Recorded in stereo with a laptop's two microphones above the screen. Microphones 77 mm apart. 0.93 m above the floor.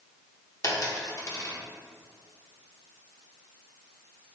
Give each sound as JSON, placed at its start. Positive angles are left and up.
{"t": 0.6, "sound": "a dropped coin", "side_deg": 45, "distance_m": 0.8}